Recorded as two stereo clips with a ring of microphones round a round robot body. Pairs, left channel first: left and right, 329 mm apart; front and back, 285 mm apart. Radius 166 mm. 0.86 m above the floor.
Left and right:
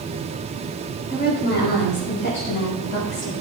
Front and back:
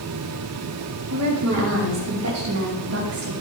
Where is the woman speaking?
155° left, 5 m; by 3.3 s 140° left, 5.5 m.